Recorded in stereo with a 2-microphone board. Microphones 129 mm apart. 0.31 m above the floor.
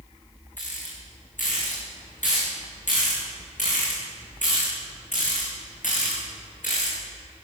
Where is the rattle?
85° left, 7 m.